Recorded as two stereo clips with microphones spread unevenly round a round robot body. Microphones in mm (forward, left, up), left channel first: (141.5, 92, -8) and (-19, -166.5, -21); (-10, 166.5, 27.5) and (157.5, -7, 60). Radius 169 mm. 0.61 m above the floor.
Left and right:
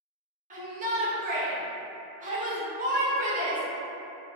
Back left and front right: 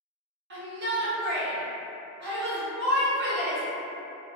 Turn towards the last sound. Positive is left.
turn(degrees=-75)